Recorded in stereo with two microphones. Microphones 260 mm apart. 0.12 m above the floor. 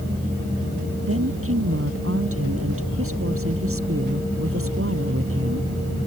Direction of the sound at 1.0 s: 55° right (ahead or behind).